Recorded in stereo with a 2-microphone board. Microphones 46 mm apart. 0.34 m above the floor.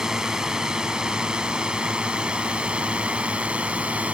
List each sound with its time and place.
0.0 s a drone: 10° right (ahead or behind); by 4.1 s 30° right (ahead or behind)